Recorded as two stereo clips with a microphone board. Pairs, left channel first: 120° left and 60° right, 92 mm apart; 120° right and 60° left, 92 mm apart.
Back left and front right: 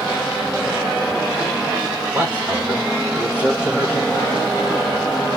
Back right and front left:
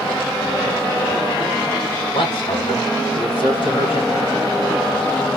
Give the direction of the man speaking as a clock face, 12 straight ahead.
5 o'clock.